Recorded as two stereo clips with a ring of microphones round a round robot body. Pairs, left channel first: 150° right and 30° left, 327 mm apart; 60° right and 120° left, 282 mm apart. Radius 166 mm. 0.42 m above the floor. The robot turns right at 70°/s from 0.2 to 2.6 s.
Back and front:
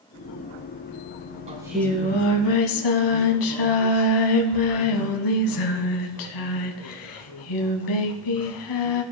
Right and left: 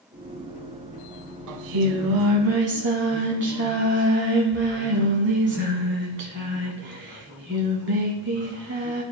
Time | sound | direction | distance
1.5 | singing | 100° left | 0.9 m